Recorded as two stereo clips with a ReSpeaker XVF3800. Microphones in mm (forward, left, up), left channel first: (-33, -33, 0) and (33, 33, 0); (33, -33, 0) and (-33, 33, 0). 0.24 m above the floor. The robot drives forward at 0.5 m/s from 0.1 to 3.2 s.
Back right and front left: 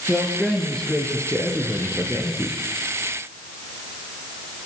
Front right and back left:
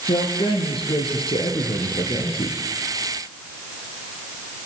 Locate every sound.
0.1 s a man speaking: 55° right, 5.5 m; by 2.6 s 65° right, 5 m